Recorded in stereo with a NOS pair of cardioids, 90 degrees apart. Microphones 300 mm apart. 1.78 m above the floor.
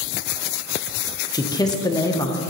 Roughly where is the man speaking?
Ahead.